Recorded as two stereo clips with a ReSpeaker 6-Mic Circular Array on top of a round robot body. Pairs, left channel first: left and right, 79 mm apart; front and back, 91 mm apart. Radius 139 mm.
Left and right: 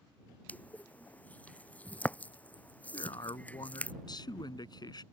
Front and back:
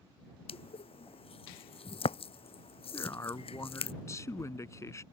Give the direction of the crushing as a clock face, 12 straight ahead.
11 o'clock.